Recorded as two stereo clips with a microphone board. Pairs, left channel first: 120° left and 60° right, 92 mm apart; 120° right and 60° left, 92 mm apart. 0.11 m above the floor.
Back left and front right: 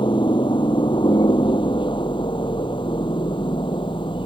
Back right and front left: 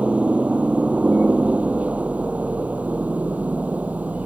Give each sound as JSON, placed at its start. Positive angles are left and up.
{"t": 0.0, "sound": "a helicopter", "azimuth_deg": 135}